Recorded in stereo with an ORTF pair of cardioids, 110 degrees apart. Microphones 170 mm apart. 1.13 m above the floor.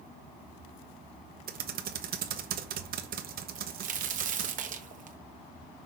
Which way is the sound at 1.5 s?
60° right.